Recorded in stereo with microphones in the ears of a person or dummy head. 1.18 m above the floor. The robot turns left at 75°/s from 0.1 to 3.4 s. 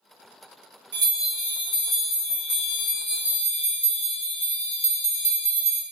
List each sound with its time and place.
0.9 s a bell: 145° right, 0.8 m; by 5.8 s 25° left, 0.8 m